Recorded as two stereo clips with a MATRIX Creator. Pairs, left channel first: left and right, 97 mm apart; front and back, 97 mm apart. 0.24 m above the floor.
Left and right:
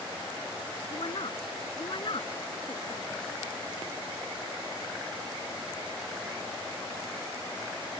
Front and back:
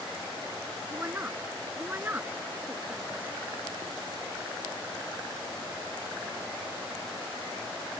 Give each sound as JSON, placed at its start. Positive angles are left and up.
{"t": 0.9, "sound": "a woman speaking", "azimuth_deg": 110}